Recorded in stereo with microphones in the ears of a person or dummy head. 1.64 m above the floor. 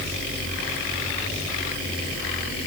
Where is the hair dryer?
I don't hear a hair dryer.